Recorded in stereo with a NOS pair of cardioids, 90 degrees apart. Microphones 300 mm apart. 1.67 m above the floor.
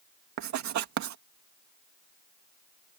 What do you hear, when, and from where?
0.4 s writing: 70° right